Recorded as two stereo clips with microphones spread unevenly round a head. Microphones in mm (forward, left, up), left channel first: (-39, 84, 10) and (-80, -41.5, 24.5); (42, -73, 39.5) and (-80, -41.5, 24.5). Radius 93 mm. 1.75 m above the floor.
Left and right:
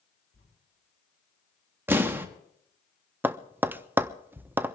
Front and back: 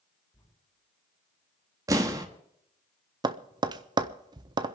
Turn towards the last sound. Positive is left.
turn(degrees=-155)